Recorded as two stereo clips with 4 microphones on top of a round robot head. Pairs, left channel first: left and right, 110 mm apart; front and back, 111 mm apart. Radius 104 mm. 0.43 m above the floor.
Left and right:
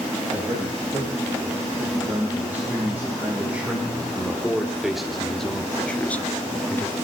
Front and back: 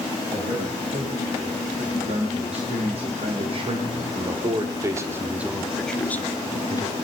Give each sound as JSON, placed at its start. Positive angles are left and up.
{"t": 0.3, "sound": "a man speaking", "azimuth_deg": -165, "distance_m": 4.5}